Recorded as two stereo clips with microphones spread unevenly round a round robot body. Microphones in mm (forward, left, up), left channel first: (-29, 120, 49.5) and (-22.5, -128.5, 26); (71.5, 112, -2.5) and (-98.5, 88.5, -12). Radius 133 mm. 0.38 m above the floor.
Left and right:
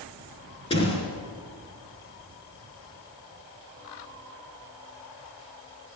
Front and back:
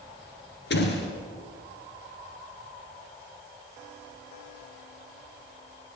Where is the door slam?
20° left, 3.5 m.